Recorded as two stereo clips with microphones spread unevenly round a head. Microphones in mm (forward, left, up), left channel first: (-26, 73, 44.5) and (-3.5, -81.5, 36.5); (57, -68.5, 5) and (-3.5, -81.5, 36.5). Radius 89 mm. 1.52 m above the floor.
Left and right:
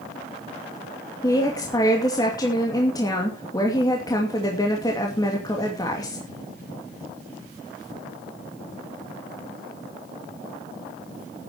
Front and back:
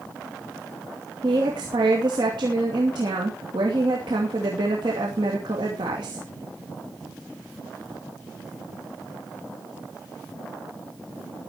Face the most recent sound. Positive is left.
turn(degrees=165)